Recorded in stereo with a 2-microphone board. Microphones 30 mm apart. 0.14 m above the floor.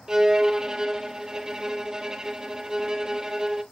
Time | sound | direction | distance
0.1 | a violin | 20° right (ahead or behind) | 0.9 m